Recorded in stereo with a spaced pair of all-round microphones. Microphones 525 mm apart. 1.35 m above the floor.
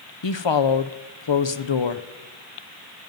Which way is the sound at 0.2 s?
55° left (ahead or behind).